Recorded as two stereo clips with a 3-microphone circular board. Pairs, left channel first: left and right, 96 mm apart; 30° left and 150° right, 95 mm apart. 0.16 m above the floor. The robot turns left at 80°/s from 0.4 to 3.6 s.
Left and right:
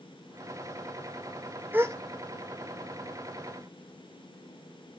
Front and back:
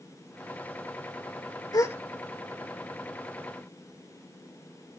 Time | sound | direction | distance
1.7 | a gasp | 20° right | 0.7 m